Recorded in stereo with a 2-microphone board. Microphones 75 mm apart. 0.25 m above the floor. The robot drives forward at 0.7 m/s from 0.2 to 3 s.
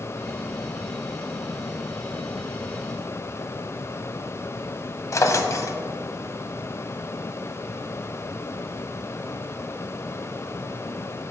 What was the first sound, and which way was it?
A drawer, 45° left (ahead or behind).